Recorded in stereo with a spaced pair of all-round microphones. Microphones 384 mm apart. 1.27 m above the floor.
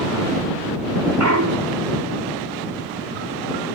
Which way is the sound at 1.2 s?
45° right (ahead or behind).